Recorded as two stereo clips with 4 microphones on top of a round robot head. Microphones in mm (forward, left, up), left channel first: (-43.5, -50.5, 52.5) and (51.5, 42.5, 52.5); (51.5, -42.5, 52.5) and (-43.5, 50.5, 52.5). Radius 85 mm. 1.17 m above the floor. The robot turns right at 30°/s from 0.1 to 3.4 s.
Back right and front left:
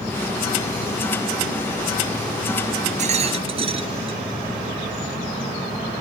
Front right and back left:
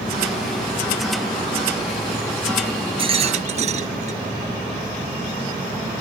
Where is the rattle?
85° left; by 4.2 s 95° left.